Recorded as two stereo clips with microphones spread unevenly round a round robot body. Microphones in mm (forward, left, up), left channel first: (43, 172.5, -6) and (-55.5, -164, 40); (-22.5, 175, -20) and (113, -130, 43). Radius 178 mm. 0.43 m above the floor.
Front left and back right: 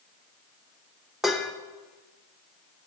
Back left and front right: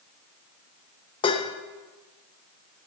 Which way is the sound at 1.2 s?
150° left.